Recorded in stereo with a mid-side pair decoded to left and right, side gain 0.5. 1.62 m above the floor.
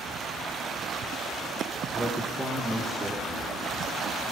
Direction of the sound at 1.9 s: 25° right.